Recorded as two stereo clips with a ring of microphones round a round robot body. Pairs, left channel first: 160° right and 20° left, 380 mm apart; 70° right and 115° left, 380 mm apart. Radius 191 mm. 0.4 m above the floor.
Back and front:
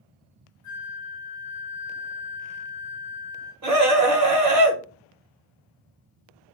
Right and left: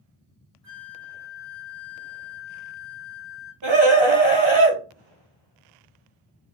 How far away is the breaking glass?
I don't hear breaking glass.